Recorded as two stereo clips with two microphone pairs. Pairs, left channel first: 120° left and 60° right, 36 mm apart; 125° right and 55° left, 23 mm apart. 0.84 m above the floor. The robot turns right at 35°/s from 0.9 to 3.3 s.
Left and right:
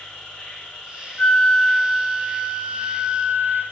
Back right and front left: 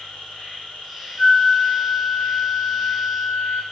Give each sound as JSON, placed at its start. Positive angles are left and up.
{"t": 0.0, "sound": "an insect", "azimuth_deg": -175, "distance_m": 3.0}
{"t": 1.2, "sound": "a flute", "azimuth_deg": 180, "distance_m": 1.0}